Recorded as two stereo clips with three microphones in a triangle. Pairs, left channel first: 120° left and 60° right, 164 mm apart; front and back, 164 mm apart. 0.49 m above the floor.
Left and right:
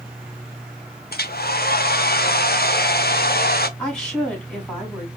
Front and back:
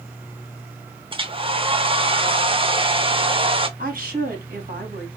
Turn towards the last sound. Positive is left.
turn(degrees=-155)